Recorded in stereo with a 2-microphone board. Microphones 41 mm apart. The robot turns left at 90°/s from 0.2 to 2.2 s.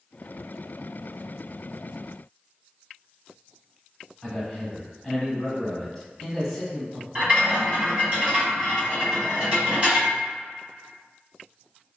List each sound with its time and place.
4.2 s a man speaking: 10° left (ahead or behind), 1.0 m
7.2 s a rattle: 30° right (ahead or behind), 1.6 m